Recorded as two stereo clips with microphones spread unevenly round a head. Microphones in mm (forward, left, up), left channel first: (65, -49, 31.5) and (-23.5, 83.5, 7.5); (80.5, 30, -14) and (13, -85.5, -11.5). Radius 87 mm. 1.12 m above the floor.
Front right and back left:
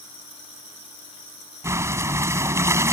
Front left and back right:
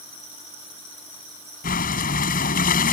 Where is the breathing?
50° left.